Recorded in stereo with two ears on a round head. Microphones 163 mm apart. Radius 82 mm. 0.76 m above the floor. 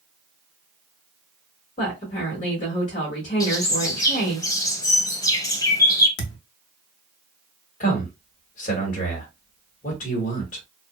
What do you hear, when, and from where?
1.8 s a woman speaking: 45° left (ahead or behind), 1.0 m
3.4 s a bird: 20° left (ahead or behind), 0.7 m
6.2 s a thud: 75° left (ahead or behind), 0.6 m
7.8 s a man speaking: 45° left (ahead or behind), 1.2 m